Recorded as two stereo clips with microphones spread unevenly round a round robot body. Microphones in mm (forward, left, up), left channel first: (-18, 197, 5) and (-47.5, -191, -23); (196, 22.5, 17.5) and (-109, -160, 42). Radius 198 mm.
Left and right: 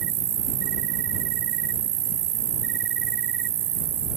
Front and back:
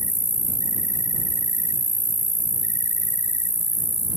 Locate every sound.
0.0 s an insect: 70° right